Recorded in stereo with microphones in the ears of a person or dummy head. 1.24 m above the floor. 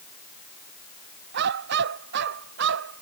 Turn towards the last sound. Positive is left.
turn(degrees=-65)  # may be behind; listen again after turning